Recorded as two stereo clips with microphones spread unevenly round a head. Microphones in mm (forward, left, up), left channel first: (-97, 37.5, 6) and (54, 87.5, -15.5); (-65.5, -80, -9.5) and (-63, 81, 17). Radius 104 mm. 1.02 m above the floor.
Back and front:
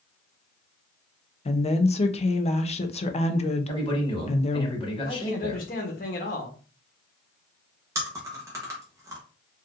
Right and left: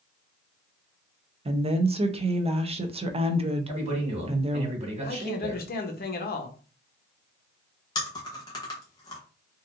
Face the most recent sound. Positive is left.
turn(degrees=-45)